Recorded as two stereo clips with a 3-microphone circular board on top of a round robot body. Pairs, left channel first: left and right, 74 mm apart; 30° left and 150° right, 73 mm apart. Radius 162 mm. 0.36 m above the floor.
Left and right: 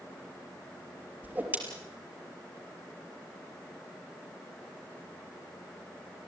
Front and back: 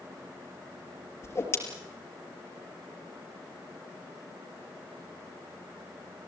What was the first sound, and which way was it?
A whoosh, 25° right.